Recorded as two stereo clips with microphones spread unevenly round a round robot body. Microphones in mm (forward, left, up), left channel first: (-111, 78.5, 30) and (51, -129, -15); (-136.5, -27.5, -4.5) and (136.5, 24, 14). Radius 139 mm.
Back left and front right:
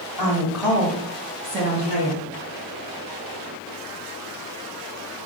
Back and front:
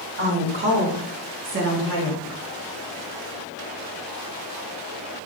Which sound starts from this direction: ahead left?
A woman speaking, at 0.2 s.